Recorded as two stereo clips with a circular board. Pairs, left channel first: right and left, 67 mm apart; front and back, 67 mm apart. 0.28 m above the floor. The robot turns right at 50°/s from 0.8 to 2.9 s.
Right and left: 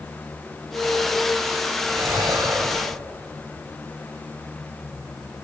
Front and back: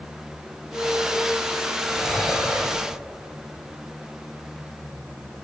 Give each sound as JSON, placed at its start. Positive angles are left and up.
{"t": 1.9, "sound": "breathing", "azimuth_deg": 75, "distance_m": 3.0}